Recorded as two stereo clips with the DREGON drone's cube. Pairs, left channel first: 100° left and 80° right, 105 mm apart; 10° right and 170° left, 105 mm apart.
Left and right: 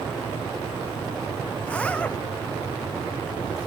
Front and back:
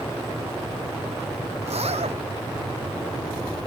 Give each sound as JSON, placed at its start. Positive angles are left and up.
{"t": 1.6, "sound": "a zipper", "azimuth_deg": 180}